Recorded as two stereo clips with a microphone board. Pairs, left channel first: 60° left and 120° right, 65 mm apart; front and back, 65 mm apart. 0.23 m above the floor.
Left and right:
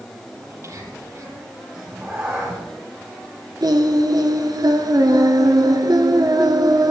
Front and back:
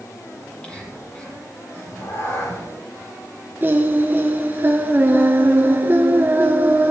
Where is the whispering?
75° right, 7 m.